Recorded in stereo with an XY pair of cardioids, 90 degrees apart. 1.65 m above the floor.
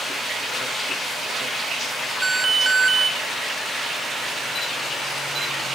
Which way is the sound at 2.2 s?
30° right.